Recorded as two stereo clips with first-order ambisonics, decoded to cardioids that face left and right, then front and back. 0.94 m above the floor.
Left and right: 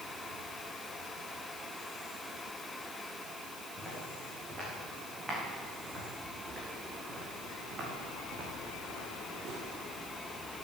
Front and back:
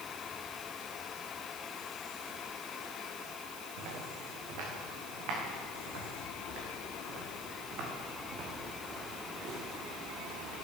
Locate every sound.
3.8 s footsteps: 175° right, 5.5 m; by 9.6 s 130° right, 4 m